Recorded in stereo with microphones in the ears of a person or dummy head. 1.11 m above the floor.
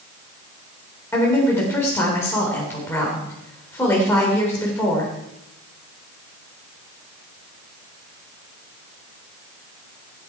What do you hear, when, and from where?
1.1 s a woman speaking: 20° left (ahead or behind), 3.5 m